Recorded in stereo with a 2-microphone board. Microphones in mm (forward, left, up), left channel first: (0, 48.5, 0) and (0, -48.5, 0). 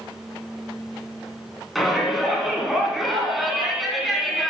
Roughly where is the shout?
Centre.